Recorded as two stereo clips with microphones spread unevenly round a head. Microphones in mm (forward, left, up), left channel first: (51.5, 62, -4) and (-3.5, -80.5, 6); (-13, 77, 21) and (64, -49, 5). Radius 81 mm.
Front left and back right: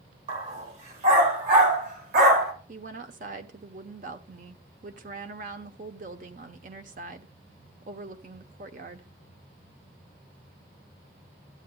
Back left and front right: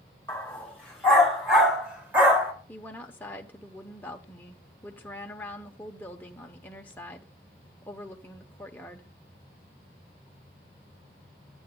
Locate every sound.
0.3 s a dog barking: 165° right, 3.5 m; by 2.5 s 135° right, 2.5 m
2.7 s a woman speaking: 155° right, 1.0 m